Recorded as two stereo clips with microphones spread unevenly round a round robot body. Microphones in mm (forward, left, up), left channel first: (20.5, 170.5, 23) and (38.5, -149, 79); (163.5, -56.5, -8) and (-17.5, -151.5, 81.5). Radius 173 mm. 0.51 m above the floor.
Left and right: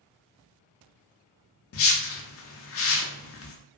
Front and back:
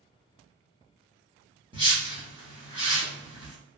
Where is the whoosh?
125° left, 0.6 m.